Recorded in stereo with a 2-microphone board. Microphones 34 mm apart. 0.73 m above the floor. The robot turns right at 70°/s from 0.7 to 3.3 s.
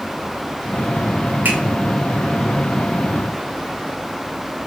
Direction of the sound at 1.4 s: 65° right (ahead or behind).